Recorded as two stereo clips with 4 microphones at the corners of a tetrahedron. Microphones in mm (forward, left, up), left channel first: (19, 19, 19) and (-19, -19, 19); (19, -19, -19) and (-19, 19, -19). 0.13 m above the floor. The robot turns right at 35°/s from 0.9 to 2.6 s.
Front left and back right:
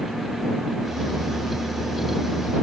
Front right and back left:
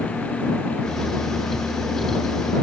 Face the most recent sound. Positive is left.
No sound to turn to.